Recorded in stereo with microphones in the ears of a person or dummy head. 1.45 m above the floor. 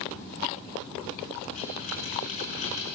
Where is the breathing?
40° left (ahead or behind), 7 m.